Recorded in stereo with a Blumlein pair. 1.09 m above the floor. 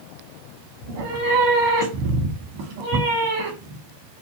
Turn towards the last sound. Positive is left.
turn(degrees=-50)